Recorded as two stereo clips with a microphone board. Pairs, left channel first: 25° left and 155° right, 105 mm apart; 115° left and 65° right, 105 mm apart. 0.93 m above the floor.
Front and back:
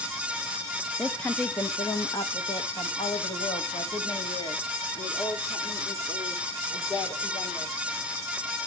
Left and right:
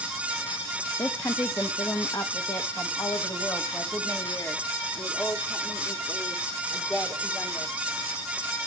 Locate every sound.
1.0 s a woman speaking: 105° left, 0.9 m; by 7.7 s 45° left, 4 m